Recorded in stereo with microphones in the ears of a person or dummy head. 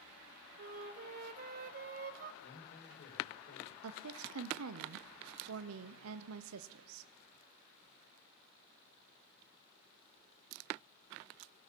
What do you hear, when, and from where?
0.6 s a flute: 50° right (ahead or behind), 1.2 m
2.4 s a man speaking: 55° left (ahead or behind), 6 m
3.8 s a woman speaking: 80° right, 0.6 m